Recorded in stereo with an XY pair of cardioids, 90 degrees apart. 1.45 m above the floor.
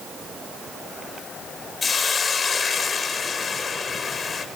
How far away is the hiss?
About 3.5 m.